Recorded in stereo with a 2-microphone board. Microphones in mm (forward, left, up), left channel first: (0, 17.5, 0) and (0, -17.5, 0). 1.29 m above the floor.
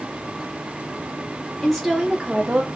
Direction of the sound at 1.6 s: 10° left (ahead or behind).